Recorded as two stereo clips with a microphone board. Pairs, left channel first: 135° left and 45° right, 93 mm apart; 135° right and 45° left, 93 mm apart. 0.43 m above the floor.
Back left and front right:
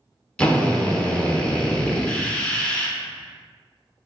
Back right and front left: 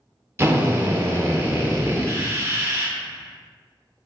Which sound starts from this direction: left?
A drill, at 0.4 s.